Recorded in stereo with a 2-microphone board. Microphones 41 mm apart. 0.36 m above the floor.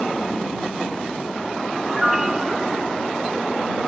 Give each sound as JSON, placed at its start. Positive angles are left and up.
{"t": 1.9, "sound": "a piano", "side_deg": -10}